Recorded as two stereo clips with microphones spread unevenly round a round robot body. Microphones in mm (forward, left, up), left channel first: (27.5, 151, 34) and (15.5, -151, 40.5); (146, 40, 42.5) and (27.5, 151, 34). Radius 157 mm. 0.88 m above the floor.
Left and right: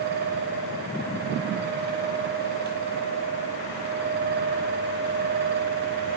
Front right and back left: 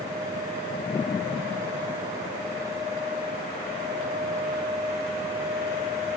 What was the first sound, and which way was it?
Only background noise.